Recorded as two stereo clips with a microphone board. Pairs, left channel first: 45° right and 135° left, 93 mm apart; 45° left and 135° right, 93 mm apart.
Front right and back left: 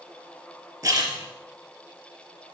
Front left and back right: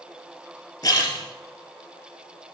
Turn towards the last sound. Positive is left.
turn(degrees=80)